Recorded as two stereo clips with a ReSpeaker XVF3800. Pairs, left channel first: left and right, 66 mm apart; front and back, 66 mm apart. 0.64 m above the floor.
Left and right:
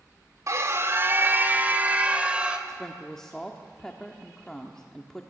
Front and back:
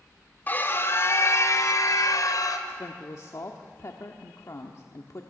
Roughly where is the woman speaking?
Ahead.